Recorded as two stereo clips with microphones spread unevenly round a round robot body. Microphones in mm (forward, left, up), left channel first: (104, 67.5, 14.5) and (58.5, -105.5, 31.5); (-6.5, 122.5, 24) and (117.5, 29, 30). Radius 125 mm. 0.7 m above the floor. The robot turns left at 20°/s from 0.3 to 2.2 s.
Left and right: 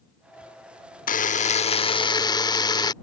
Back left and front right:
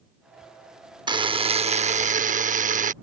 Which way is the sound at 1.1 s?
25° left.